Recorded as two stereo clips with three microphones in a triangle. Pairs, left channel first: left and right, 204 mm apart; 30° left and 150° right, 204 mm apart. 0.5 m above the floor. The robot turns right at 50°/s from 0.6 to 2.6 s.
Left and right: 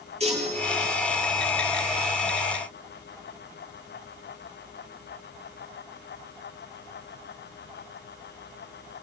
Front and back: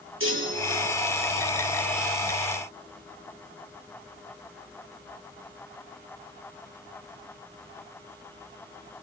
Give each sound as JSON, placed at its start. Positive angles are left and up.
{"t": 0.2, "sound": "a chime", "azimuth_deg": -150, "distance_m": 9.0}